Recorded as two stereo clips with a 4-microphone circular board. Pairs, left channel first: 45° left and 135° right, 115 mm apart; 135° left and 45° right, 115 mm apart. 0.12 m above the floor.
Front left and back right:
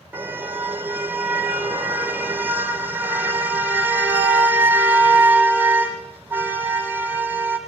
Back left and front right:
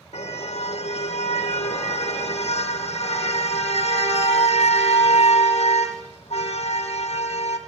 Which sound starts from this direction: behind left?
A car horn, at 0.1 s.